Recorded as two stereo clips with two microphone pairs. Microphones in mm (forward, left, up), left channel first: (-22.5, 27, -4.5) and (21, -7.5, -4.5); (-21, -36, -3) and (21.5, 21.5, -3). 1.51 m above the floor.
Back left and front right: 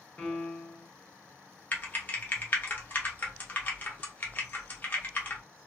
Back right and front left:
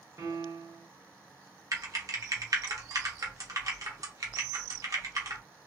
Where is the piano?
80° left, 0.8 m.